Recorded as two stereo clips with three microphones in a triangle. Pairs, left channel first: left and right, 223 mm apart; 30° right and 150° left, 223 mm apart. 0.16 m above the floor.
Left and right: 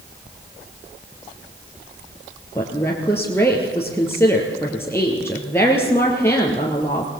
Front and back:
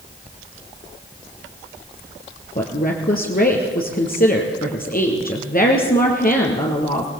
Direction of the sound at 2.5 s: 10° left.